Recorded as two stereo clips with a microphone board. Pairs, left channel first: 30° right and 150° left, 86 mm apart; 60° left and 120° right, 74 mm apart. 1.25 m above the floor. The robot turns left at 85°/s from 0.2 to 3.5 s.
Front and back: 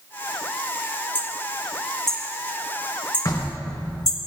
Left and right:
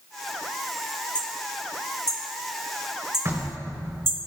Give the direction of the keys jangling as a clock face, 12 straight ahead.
I don't hear keys jangling.